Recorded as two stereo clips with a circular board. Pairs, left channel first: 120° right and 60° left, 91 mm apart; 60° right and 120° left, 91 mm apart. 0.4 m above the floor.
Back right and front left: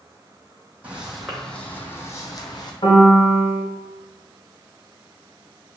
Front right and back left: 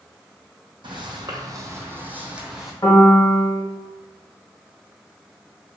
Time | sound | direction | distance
0.8 | footsteps | 135° left | 0.8 m
2.8 | a piano | 115° right | 0.8 m